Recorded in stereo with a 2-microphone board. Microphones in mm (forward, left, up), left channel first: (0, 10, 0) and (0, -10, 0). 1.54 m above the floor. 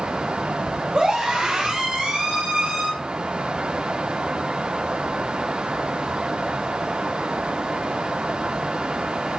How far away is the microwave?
I don't hear a microwave.